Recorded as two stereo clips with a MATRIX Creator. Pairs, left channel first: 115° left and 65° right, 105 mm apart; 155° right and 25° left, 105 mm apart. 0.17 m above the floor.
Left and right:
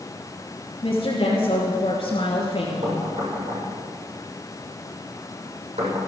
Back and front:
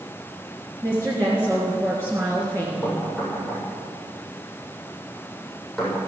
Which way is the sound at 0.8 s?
85° left.